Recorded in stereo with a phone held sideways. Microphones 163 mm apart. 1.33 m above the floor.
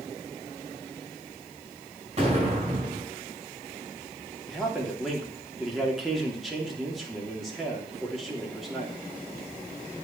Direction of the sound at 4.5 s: Centre (ahead or behind).